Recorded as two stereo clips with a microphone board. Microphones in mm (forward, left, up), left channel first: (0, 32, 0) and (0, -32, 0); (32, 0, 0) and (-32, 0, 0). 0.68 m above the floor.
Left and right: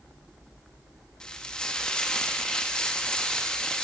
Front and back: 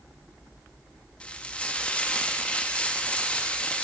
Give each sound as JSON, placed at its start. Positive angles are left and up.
{"t": 1.2, "sound": "frying", "azimuth_deg": 35, "distance_m": 0.7}